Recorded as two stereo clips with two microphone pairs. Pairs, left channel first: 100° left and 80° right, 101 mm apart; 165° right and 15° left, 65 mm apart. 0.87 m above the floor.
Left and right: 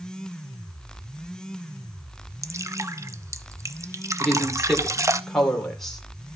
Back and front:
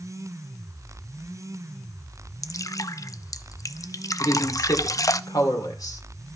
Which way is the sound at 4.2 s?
175° right.